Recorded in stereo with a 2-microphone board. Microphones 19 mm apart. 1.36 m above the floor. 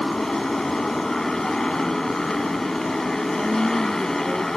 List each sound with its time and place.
0.0 s a motorcycle: 25° left (ahead or behind)
3.4 s a woman speaking: 20° right (ahead or behind)